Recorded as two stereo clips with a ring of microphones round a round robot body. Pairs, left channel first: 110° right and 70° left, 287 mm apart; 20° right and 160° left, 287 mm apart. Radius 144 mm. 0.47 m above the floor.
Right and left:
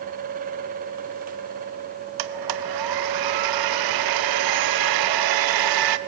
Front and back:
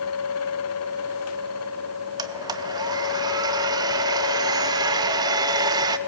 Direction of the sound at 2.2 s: 80° left.